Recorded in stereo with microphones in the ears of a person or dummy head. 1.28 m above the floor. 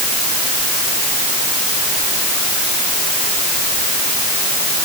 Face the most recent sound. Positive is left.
No sound to turn to.